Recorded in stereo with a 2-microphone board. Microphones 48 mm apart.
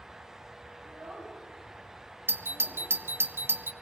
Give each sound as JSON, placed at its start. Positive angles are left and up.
{"t": 0.8, "sound": "a child speaking", "side_deg": -55, "distance_m": 5.0}
{"t": 2.3, "sound": "a doorbell", "side_deg": -50, "distance_m": 0.6}